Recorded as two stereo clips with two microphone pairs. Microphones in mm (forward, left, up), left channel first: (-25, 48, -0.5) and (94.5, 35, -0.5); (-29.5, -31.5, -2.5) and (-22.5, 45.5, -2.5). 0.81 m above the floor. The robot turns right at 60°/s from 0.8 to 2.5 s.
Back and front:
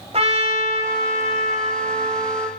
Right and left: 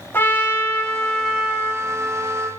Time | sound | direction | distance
0.1 | a trumpet | 35° right | 1.3 m